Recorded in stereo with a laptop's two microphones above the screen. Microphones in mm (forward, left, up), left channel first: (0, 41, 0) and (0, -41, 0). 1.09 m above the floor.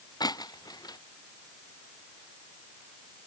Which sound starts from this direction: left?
Breaking glass, at 0.2 s.